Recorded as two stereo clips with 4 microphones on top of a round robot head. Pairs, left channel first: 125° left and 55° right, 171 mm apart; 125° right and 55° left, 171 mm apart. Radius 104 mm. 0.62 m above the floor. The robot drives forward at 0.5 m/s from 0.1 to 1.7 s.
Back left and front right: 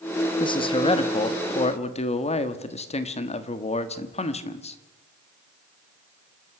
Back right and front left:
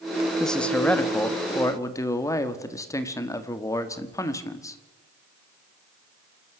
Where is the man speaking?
150° left, 1.1 m; by 4.8 s 165° left, 1.5 m.